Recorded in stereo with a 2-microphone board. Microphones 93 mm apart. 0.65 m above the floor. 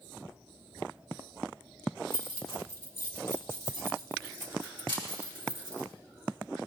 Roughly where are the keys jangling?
Left.